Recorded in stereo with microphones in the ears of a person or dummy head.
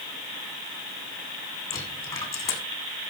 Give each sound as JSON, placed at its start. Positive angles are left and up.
{"t": 1.7, "sound": "a dropped coin", "side_deg": 20, "distance_m": 5.0}